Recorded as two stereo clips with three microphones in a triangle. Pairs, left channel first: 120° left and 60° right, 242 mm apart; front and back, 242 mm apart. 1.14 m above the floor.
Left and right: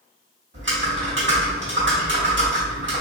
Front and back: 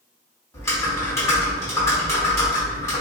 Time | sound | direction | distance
0.5 | typing on a keyboard | 75° right | 1.1 m